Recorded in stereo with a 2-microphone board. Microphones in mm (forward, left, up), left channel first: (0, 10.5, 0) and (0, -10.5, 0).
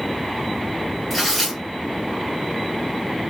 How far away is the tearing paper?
About 2.5 m.